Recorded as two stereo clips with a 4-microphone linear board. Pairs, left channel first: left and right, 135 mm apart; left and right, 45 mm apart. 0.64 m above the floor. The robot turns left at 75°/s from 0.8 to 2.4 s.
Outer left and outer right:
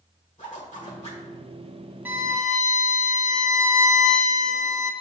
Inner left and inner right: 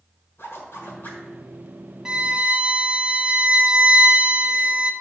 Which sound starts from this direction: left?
A zipper, at 0.4 s.